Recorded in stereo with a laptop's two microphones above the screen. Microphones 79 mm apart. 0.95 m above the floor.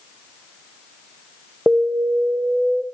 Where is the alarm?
10° right (ahead or behind), 1.0 m.